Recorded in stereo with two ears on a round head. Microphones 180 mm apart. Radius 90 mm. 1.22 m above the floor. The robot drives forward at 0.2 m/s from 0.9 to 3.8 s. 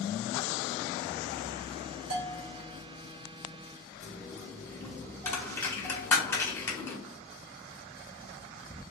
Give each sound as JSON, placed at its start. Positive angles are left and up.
{"t": 2.1, "sound": "a bell", "side_deg": -65, "distance_m": 1.2}
{"t": 4.0, "sound": "a dropped coin", "side_deg": 15, "distance_m": 1.0}